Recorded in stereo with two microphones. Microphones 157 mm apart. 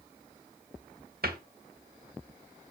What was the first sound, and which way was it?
A cupboard door, 80° right.